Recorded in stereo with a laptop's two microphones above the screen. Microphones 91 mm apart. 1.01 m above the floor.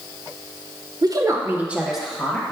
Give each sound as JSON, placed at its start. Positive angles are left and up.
{"t": 1.0, "sound": "a woman speaking", "side_deg": -45, "distance_m": 0.7}